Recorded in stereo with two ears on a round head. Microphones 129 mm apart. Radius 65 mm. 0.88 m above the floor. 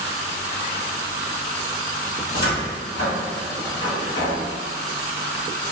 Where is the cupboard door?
65° left (ahead or behind), 1.7 m.